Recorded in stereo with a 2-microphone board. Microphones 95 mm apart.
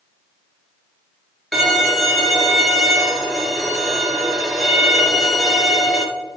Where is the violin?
Centre (ahead or behind), 1.2 m.